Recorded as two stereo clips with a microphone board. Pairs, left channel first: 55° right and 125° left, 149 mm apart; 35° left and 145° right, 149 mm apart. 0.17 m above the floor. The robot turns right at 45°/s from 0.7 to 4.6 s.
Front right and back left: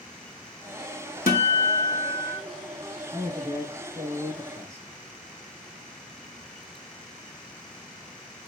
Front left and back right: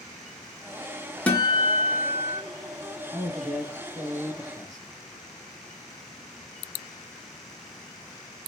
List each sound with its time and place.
1.3 s a guitar: 45° right, 0.8 m; by 2.4 s 5° left, 0.8 m
3.1 s a man speaking: 110° left, 1.1 m; by 4.9 s 175° left, 1.1 m